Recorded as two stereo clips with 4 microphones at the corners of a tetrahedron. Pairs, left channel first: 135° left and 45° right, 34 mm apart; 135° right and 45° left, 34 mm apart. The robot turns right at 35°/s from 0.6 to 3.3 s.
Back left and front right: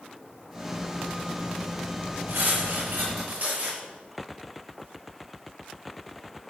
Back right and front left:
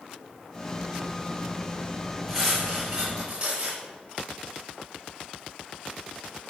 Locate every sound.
2.3 s cutlery clinking: 40° right, 6.5 m; by 3.8 s 5° right, 6.5 m